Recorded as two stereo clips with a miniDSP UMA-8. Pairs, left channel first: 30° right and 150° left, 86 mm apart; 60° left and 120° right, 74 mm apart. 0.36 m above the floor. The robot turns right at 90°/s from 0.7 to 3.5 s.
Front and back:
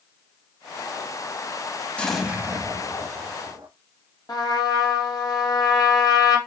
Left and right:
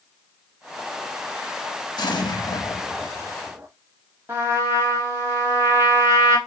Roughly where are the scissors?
No scissors in this recording.